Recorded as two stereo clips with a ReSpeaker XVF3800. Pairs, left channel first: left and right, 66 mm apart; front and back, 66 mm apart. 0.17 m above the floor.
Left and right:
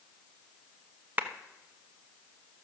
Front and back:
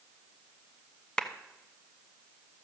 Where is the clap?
65° right, 0.9 m.